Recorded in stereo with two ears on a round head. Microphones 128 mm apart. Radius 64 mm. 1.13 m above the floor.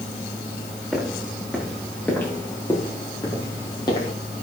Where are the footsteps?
Centre (ahead or behind), 7 m; by 4.1 s 35° left (ahead or behind), 6.5 m.